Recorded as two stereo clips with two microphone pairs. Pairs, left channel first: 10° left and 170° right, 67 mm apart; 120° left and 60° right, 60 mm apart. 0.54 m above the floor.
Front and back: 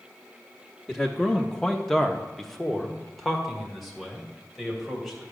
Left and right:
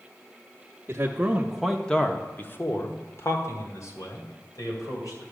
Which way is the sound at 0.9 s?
65° right.